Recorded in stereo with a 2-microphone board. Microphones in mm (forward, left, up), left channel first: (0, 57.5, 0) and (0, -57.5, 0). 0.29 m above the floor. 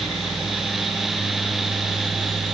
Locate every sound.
Only background noise.